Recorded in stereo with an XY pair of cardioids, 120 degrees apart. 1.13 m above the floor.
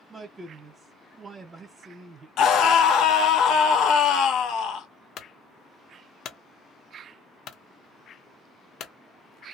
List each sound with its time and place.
0.1 s a man speaking: 30° right, 0.9 m
2.4 s a scream: 70° left, 0.9 m
5.2 s a clunk: 60° left, 0.6 m